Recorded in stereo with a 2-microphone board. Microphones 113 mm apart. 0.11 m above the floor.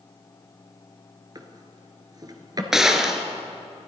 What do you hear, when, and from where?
1.4 s a drawer: 35° right (ahead or behind), 1.0 m
2.7 s a gunshot: 5° right (ahead or behind), 0.9 m